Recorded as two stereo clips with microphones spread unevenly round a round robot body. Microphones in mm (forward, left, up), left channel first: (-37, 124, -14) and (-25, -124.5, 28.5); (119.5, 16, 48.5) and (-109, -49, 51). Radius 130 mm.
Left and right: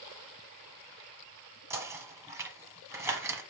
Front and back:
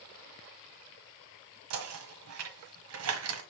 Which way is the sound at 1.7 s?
170° right.